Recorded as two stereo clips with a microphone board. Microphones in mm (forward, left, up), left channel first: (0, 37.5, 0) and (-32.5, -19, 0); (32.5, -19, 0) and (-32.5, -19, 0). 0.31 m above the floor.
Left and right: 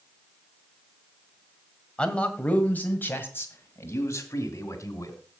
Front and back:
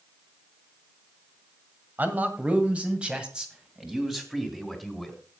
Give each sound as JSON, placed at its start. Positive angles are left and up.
{"t": 2.0, "sound": "a man speaking", "azimuth_deg": 130, "distance_m": 1.8}